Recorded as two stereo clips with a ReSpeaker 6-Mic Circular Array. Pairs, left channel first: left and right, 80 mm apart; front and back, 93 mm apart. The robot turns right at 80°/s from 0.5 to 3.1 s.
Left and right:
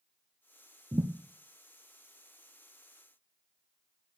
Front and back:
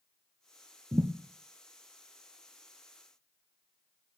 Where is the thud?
135° right, 1.2 m; by 1.1 s 120° right, 1.2 m.